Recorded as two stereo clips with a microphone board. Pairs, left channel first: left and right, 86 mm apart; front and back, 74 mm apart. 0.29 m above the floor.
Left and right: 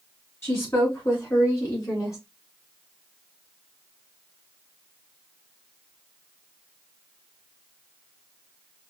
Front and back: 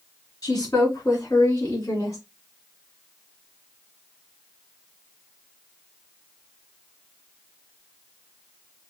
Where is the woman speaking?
35° left, 3.5 m; by 2.2 s 45° left, 2.5 m.